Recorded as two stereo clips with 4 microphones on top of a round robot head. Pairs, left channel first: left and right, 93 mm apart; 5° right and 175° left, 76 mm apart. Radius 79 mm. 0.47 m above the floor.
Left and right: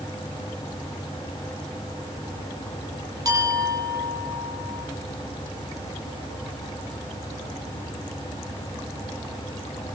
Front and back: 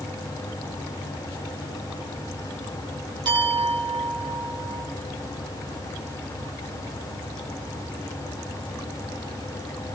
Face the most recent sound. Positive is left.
turn(degrees=-145)